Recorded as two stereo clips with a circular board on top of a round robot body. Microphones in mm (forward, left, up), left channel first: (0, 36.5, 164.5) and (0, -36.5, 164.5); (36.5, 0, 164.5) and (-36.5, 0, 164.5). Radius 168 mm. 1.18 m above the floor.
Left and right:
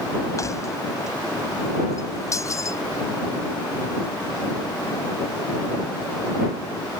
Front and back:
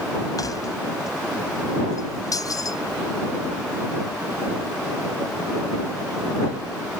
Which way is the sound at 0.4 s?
40° left.